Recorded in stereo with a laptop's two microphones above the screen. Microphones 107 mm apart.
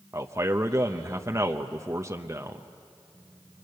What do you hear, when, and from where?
0.1 s a man speaking: 30° right (ahead or behind), 0.7 m